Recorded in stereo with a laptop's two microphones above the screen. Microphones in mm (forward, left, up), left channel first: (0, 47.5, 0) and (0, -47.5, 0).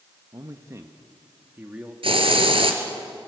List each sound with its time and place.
0.3 s a man speaking: 40° right (ahead or behind), 1.2 m; by 1.9 s 15° right (ahead or behind), 2 m
2.0 s a hiss: 70° right (ahead or behind), 2.5 m